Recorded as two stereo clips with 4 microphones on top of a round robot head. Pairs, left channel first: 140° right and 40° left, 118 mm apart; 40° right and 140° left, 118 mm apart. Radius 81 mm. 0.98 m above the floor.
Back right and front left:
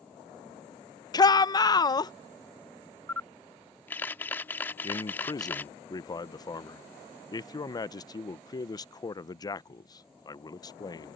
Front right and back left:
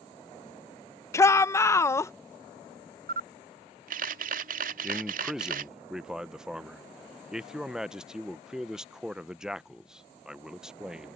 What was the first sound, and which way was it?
A shout, 100° right.